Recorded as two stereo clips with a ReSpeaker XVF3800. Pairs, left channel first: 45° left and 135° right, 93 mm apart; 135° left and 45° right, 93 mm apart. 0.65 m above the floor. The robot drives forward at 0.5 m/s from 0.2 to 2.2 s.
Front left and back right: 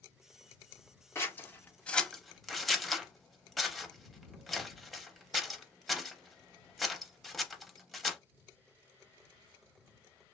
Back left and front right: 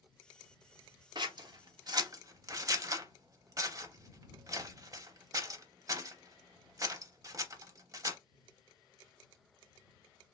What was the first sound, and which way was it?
Scissors, 15° right.